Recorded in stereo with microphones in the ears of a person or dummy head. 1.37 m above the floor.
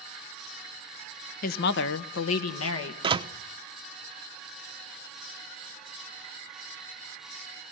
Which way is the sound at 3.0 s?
30° right (ahead or behind).